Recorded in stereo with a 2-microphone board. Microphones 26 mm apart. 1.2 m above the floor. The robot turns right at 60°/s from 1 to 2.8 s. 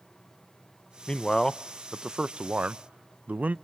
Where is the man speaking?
30° left (ahead or behind), 0.5 m; by 3.5 s 70° right (ahead or behind), 0.5 m.